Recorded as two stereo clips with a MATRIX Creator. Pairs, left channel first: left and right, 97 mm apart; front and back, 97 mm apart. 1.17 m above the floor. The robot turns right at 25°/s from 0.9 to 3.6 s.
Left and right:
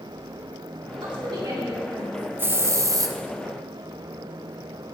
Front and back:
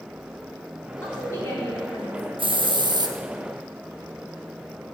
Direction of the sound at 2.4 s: 160° right.